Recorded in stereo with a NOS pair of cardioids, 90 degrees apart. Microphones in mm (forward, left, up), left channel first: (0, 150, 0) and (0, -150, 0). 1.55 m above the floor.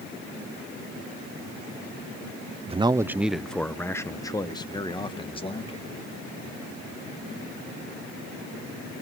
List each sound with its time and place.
2.7 s a man speaking: 20° right, 0.7 m; by 6.0 s 20° left, 3 m